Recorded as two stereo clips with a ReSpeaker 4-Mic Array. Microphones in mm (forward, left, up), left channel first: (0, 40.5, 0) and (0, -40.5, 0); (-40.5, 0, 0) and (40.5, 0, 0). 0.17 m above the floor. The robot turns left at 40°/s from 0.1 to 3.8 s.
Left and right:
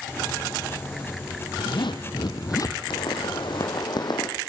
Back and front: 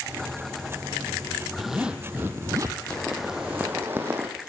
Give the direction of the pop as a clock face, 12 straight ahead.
9 o'clock.